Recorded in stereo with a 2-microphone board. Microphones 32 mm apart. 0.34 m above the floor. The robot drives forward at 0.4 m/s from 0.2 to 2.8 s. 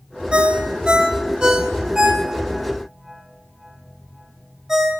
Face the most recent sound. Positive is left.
turn(degrees=-20)  # may be behind; listen again after turning